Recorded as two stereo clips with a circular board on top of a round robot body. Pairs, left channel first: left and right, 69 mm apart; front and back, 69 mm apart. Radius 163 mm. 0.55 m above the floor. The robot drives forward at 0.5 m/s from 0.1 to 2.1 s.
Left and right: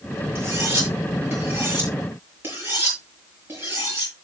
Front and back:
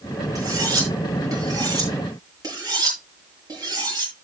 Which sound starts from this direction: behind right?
Cutlery clinking, at 0.3 s.